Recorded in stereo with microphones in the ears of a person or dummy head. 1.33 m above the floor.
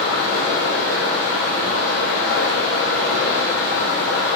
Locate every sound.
0.0 s running water: 70° left (ahead or behind), 1.6 m